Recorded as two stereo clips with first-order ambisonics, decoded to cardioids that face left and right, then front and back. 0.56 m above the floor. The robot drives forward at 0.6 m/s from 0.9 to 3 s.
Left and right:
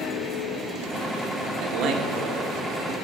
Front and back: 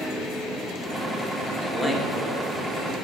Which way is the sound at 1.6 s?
80° right.